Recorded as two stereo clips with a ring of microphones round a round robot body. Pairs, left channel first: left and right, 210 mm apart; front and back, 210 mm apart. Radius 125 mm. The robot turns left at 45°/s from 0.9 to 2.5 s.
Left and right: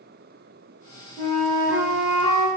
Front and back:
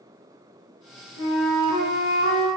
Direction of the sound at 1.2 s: 20° left.